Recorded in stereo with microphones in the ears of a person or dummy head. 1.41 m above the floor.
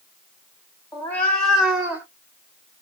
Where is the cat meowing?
15° left (ahead or behind), 1.4 m; by 2.0 s 10° right (ahead or behind), 1.4 m.